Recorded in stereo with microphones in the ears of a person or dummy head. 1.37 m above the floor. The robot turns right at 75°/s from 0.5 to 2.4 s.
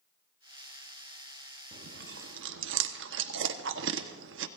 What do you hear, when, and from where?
1.7 s chewing: 50° right (ahead or behind), 1.1 m; by 4.5 s 65° right (ahead or behind), 1.1 m